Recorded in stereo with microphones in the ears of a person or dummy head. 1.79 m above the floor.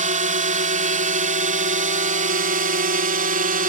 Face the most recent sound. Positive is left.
turn(degrees=-45)  # may be behind; listen again after turning